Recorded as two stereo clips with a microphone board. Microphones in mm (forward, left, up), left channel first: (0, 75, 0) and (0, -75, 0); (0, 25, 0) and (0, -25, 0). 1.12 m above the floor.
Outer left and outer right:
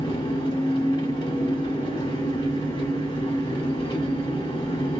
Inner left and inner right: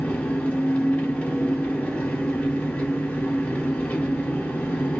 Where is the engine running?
30° left (ahead or behind), 1.3 m.